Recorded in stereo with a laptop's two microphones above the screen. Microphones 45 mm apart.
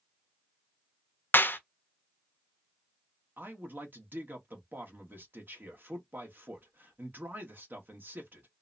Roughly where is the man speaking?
Right.